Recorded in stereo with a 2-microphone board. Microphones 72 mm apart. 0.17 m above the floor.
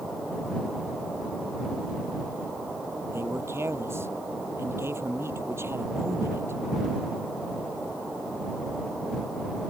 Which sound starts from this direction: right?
A man speaking, at 3.1 s.